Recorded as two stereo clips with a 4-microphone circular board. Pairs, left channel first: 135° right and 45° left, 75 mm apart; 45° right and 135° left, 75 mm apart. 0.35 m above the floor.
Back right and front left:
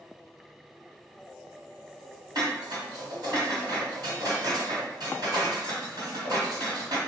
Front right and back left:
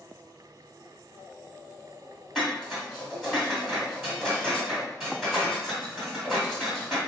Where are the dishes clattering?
50° left, 1.6 m.